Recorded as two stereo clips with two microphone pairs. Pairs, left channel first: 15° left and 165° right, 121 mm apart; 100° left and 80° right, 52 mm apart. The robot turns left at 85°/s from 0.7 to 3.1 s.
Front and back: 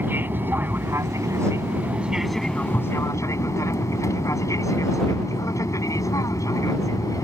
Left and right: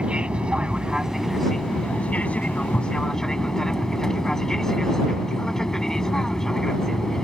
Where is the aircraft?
120° right; by 7.3 s 30° left.